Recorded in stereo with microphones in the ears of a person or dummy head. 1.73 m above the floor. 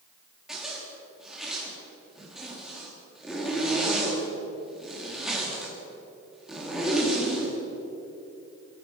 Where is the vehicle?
No vehicle in this recording.